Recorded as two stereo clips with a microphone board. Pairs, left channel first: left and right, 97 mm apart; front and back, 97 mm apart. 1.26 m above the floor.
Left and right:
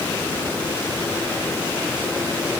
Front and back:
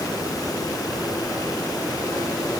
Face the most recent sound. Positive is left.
No sound to turn to.